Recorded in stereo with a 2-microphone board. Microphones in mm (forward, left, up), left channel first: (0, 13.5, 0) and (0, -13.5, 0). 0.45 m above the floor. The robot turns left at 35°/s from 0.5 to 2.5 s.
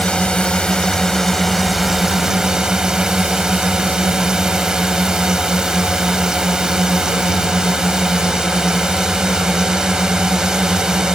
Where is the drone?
40° left; by 11.2 s 30° right.